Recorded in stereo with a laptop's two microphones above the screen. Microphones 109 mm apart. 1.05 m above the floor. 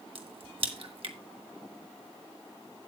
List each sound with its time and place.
0.1 s a crack: 60° right (ahead or behind), 1.4 m